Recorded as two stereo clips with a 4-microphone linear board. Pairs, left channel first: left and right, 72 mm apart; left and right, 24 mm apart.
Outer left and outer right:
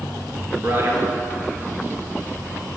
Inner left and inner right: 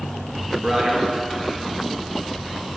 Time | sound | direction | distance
0.6 | a man speaking | 35° right (ahead or behind) | 1.7 m